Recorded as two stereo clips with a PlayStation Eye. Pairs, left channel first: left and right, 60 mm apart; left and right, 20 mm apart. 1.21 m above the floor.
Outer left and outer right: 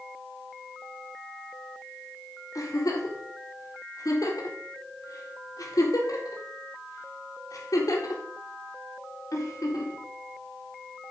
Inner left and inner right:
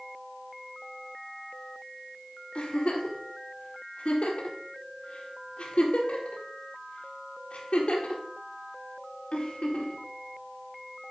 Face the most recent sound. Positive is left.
turn(degrees=80)